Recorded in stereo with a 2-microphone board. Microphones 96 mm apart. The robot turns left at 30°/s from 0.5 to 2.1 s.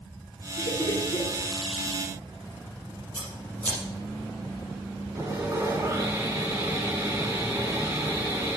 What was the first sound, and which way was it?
Laughter, 50° left (ahead or behind).